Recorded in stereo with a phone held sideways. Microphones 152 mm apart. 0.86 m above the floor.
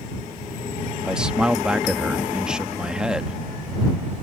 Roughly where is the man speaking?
Centre.